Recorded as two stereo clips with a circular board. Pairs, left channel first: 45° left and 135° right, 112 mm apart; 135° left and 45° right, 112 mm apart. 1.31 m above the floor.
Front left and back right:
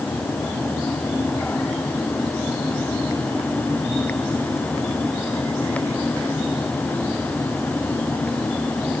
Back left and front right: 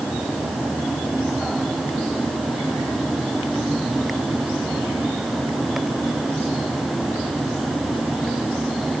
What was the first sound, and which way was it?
Only background noise.